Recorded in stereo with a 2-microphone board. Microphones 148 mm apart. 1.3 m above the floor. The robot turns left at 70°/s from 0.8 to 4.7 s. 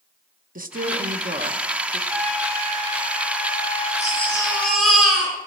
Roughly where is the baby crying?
Ahead left.